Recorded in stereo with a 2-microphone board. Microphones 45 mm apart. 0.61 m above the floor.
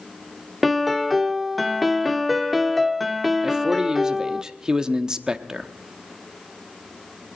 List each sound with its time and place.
0.6 s a piano: centre (ahead or behind), 0.6 m
3.4 s a man speaking: 15° right (ahead or behind), 0.7 m